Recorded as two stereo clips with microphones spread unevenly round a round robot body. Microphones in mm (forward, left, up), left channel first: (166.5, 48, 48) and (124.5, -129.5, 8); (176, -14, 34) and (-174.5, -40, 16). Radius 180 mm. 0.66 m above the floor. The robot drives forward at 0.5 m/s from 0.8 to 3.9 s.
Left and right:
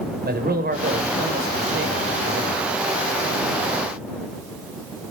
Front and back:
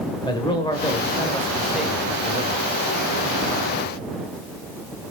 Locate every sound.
0.2 s a man speaking: 75° right, 2.5 m; by 2.7 s 100° right, 2.5 m